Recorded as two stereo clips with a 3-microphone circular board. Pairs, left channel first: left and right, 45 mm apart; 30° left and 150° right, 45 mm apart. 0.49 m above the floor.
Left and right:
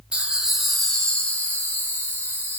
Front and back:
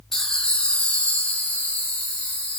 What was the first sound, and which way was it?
Laughter, 45° right.